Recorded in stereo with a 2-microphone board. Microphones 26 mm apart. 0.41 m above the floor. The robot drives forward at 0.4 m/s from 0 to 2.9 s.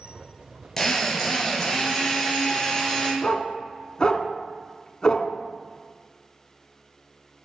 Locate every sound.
0.8 s a drill: 15° left (ahead or behind), 3 m
3.2 s a dog barking: 35° left (ahead or behind), 0.8 m